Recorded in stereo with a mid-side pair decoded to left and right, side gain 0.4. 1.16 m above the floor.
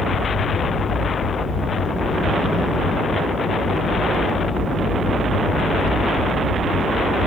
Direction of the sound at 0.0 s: 70° left.